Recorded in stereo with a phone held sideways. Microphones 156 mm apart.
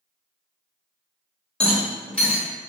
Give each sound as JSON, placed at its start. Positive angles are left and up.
{"t": 1.6, "sound": "a rattle", "side_deg": 5, "distance_m": 1.2}